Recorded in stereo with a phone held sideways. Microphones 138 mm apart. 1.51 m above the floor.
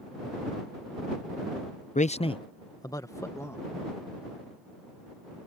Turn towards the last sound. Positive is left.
turn(degrees=20)  # may be behind; listen again after turning